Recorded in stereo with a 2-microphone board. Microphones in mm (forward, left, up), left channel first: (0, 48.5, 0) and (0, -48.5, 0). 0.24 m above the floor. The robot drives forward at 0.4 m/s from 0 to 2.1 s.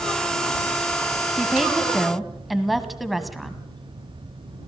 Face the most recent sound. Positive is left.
turn(degrees=0)  # may be behind; listen again after turning